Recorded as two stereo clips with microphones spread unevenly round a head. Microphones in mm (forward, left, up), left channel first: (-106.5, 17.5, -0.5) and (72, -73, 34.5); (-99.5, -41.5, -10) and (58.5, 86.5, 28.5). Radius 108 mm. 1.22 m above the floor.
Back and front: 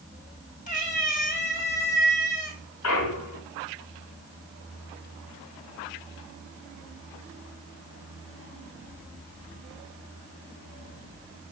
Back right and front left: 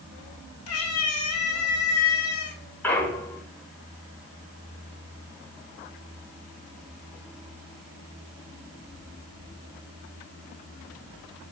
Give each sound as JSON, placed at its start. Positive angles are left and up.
{"t": 0.7, "sound": "a cat meowing", "azimuth_deg": -155, "distance_m": 2.5}
{"t": 2.8, "sound": "a clunk", "azimuth_deg": 130, "distance_m": 1.5}